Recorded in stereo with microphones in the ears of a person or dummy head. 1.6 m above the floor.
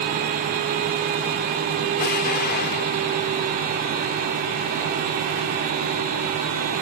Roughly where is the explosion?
Left.